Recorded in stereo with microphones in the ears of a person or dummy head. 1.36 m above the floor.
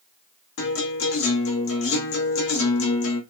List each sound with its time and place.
0.6 s a guitar: 60° left (ahead or behind), 0.9 m